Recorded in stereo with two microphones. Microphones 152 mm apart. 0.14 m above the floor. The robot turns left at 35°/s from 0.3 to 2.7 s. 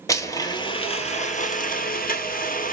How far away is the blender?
About 0.9 m.